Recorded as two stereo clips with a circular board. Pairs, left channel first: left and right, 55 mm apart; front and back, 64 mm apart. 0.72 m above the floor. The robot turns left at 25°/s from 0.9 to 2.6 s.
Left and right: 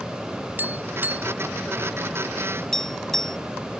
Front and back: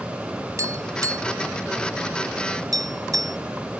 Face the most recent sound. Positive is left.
turn(degrees=170)